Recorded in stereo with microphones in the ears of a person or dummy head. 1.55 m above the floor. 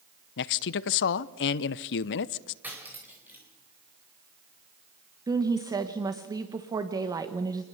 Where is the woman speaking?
20° right (ahead or behind), 1.2 m.